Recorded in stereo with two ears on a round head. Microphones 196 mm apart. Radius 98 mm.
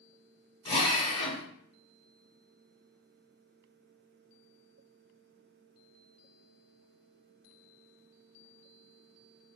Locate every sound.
0.7 s a drill: 25° left (ahead or behind), 2 m